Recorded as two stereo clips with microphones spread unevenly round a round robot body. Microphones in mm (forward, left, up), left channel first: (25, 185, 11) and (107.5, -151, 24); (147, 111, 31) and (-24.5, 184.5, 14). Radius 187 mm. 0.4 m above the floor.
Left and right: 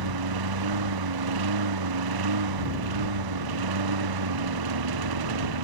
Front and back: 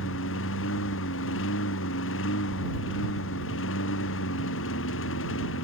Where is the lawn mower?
55° right.